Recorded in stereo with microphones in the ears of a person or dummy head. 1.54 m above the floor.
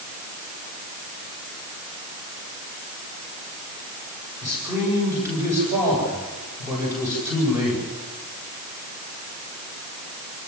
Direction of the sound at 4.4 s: 15° right (ahead or behind).